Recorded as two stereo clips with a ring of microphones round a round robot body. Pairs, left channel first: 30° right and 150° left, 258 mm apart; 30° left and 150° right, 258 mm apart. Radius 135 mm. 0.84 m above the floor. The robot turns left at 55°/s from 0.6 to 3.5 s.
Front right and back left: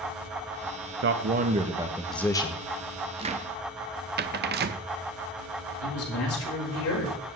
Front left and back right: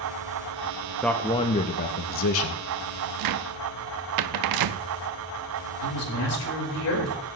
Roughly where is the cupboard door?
Behind right.